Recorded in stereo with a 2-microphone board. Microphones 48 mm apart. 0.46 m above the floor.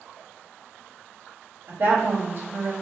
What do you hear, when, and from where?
1.7 s a woman speaking: 45° right (ahead or behind), 1.8 m